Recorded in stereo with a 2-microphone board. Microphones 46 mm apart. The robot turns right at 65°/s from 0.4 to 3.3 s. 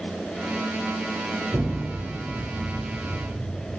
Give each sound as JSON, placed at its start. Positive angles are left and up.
{"t": 1.5, "sound": "an explosion", "side_deg": -50, "distance_m": 4.5}